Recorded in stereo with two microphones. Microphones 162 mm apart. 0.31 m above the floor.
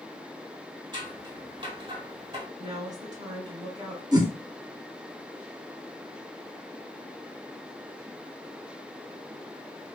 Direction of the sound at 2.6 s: 25° right (ahead or behind).